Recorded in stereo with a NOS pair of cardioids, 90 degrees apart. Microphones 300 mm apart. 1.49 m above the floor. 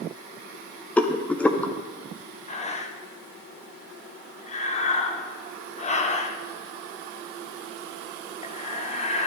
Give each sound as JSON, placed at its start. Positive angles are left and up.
{"t": 1.0, "sound": "a rattle", "azimuth_deg": 5, "distance_m": 0.8}
{"t": 2.5, "sound": "breathing", "azimuth_deg": 20, "distance_m": 1.0}